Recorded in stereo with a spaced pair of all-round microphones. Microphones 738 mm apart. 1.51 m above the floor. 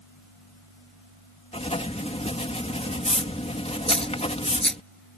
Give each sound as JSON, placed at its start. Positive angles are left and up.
{"t": 1.5, "sound": "writing", "side_deg": 10}
{"t": 3.9, "sound": "a dropped coin", "side_deg": 0}